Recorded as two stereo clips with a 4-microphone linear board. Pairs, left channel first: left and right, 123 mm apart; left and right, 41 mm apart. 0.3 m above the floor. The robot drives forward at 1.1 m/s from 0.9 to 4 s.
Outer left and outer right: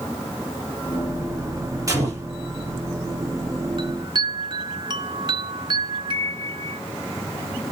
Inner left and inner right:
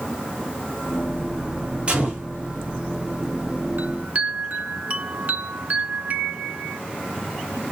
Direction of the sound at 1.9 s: 30° right (ahead or behind).